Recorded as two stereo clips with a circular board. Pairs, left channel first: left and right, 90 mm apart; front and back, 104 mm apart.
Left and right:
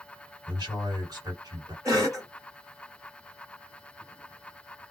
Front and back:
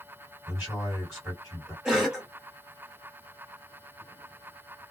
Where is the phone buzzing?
No phone buzzing in this recording.